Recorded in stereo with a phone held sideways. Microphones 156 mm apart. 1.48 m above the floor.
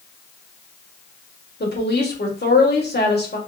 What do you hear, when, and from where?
1.6 s a woman speaking: 80° left, 1.3 m